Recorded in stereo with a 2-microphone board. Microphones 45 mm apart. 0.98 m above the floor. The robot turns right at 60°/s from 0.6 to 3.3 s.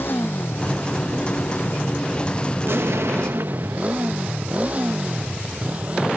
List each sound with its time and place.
0.0 s a motorcycle: 55° left (ahead or behind); by 6.2 s 30° right (ahead or behind)
2.6 s an explosion: 115° right; by 4.1 s 80° right